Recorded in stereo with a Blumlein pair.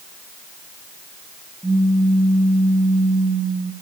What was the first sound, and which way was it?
A pop, 5° right.